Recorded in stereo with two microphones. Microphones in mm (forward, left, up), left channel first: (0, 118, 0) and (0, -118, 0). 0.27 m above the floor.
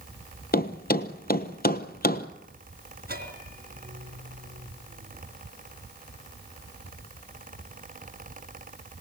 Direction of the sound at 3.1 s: 40° right (ahead or behind).